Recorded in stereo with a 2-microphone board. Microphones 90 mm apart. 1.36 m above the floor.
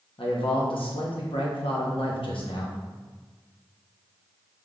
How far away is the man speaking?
About 0.9 m.